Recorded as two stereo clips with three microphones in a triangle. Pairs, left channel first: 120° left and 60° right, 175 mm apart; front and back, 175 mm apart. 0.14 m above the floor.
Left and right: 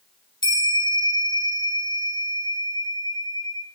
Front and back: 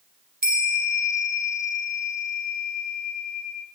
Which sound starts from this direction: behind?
A bell, at 0.4 s.